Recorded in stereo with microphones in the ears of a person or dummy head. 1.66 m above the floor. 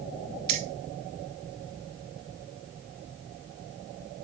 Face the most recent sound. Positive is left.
turn(degrees=-30)  # may be behind; listen again after turning